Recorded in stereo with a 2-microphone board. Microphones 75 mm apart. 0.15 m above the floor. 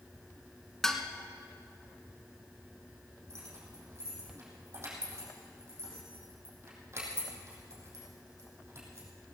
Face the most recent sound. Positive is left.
turn(degrees=-40)  # may be behind; listen again after turning